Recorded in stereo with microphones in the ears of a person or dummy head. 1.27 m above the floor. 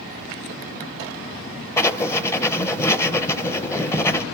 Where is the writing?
10° left (ahead or behind), 0.6 m.